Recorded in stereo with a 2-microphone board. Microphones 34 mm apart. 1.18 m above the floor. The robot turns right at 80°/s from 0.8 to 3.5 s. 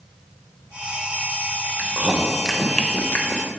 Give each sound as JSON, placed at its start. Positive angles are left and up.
{"t": 1.8, "sound": "chewing", "side_deg": -60, "distance_m": 0.8}